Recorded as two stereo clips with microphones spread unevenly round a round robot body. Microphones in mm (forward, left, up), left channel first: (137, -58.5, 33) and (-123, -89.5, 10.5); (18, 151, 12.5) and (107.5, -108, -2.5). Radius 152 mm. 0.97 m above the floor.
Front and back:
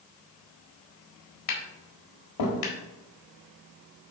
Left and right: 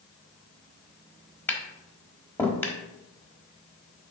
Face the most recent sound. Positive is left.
turn(degrees=25)